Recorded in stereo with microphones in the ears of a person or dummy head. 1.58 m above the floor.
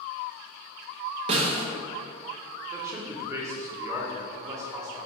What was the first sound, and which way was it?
A snare drum, 40° right (ahead or behind).